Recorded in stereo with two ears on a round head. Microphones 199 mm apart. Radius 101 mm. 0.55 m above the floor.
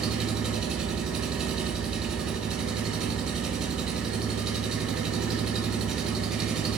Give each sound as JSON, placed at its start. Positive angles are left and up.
{"t": 0.0, "sound": "an engine running", "side_deg": -5, "distance_m": 0.9}